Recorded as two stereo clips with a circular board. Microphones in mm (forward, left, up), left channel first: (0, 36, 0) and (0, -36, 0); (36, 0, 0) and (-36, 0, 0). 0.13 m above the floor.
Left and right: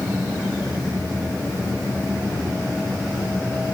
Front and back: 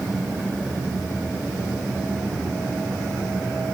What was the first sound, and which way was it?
Only background noise.